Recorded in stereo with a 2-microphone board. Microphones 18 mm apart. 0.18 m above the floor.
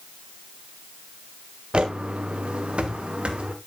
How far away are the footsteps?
About 1.3 m.